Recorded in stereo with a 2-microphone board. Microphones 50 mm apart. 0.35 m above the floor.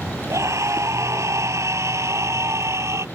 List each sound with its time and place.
0.3 s a scream: 80° right; by 3.0 s 70° right (ahead or behind)